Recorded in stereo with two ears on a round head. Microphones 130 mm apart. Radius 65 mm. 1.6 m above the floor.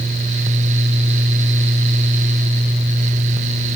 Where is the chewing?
I don't hear chewing.